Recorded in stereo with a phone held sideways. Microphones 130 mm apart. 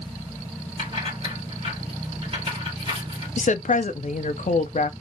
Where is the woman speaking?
60° left (ahead or behind), 0.6 m.